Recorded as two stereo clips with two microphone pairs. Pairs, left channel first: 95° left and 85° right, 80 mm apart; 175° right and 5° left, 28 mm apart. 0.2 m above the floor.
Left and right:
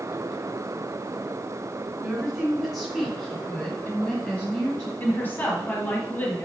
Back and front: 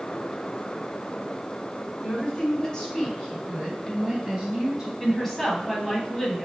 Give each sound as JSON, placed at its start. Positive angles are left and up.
{"t": 2.0, "sound": "a woman speaking", "azimuth_deg": -165, "distance_m": 1.7}
{"t": 5.0, "sound": "a woman speaking", "azimuth_deg": 115, "distance_m": 1.0}